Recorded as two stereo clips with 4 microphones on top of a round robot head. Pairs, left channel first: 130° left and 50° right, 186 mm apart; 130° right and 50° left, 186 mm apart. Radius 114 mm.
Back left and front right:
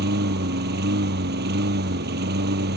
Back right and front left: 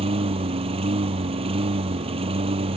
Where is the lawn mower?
15° right.